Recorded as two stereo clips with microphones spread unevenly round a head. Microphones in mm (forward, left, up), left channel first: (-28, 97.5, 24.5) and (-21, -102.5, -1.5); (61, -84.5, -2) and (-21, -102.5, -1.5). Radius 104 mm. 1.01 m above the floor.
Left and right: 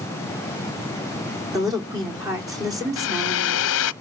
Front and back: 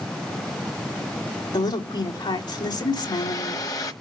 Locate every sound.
1.5 s a woman speaking: 15° right, 3.5 m
3.0 s a hair dryer: 70° left, 0.7 m